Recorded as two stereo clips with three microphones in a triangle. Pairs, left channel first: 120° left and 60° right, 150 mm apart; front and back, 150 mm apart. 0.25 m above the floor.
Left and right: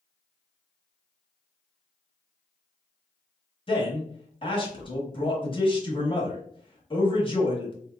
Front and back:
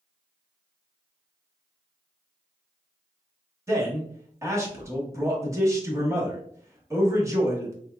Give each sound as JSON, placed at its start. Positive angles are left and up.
{"t": 3.7, "sound": "a man speaking", "azimuth_deg": 125, "distance_m": 1.1}